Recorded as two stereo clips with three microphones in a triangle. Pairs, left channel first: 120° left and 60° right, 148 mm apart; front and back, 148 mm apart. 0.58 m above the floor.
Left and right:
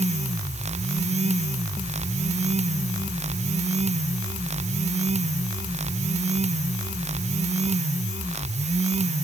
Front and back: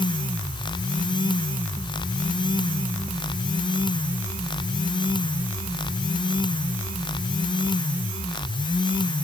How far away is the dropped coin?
No dropped coin in this recording.